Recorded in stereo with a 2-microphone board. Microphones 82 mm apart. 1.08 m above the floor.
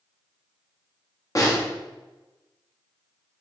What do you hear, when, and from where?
1.4 s a snare drum: 40° left (ahead or behind), 0.9 m